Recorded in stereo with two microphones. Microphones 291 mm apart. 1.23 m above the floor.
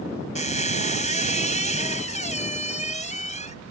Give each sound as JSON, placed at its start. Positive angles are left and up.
{"t": 0.3, "sound": "a squeak", "side_deg": 25}